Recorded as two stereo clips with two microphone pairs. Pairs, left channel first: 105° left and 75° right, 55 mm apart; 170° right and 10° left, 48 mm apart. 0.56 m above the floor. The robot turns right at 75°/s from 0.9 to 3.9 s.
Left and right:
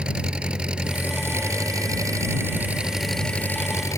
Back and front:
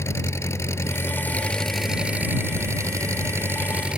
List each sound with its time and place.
0.0 s an engine running: 145° right; by 4.0 s 80° left